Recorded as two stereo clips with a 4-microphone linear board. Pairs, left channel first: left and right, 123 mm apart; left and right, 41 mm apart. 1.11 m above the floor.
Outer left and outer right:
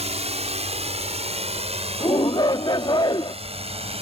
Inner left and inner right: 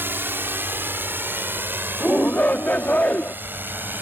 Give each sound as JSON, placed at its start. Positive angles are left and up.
{"t": 0.0, "sound": "a drone", "side_deg": -55}
{"t": 2.0, "sound": "a shout", "side_deg": 40}